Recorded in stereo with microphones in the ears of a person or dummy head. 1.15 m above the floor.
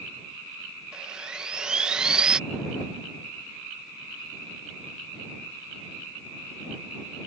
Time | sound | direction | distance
0.9 | sawing | 5° right (ahead or behind) | ?